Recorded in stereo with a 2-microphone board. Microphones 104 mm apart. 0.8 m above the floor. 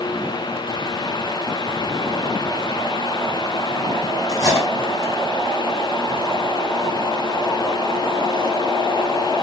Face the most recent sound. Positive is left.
turn(degrees=40)  # may be behind; listen again after turning